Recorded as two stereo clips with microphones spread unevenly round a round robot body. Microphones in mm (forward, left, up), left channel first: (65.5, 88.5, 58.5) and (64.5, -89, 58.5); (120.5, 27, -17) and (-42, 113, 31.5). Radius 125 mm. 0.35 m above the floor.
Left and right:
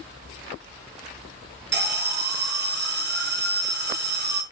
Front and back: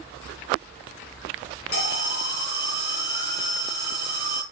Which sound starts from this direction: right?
An alarm, at 1.7 s.